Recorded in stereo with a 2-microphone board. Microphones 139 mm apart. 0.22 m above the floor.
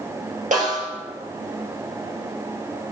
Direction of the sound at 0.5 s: 70° right (ahead or behind).